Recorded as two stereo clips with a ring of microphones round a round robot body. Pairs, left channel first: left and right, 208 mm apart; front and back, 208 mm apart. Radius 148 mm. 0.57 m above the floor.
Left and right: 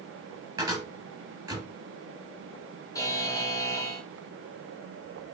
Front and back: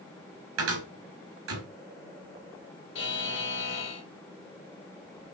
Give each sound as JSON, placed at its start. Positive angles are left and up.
{"t": 0.6, "sound": "a cupboard door", "azimuth_deg": -170, "distance_m": 4.0}
{"t": 3.0, "sound": "a buzzer", "azimuth_deg": 15, "distance_m": 2.5}